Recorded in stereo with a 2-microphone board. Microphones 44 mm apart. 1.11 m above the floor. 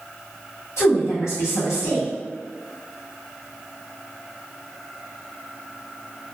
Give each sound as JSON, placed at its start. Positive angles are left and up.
{"t": 0.8, "sound": "a woman speaking", "side_deg": 80, "distance_m": 1.7}